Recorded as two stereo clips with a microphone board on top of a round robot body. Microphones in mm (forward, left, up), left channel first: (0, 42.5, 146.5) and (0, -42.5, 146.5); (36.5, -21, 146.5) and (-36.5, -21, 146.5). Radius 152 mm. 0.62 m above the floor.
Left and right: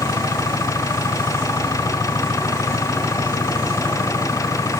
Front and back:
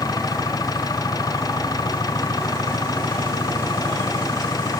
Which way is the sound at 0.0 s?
35° left.